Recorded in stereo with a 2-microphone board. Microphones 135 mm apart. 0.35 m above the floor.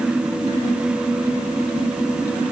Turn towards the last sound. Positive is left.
No sound to turn to.